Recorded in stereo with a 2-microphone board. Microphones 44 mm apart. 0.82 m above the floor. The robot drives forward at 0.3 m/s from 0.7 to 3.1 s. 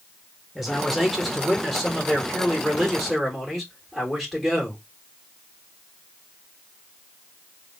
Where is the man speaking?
Centre (ahead or behind), 0.9 m.